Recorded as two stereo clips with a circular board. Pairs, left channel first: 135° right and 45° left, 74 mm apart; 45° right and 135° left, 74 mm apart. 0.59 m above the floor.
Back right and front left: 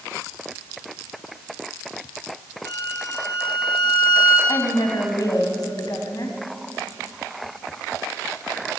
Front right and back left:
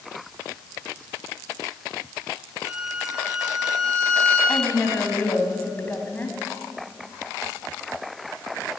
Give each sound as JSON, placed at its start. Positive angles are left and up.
{"t": 2.6, "sound": "a violin", "azimuth_deg": -150, "distance_m": 4.5}
{"t": 4.5, "sound": "a woman speaking", "azimuth_deg": -110, "distance_m": 3.5}